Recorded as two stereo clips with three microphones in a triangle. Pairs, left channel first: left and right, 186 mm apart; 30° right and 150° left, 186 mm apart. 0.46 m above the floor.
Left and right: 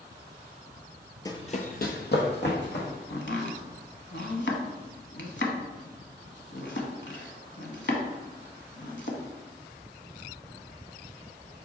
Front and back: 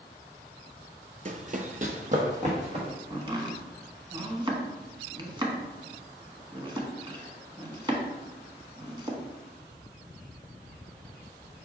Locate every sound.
1.2 s running footsteps: 150° left, 0.5 m; by 2.9 s 100° left, 1.8 m
3.1 s chopping: 85° left, 0.8 m